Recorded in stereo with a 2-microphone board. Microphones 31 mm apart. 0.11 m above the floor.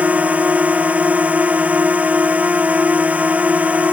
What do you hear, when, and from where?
0.0 s a drone: 45° right (ahead or behind)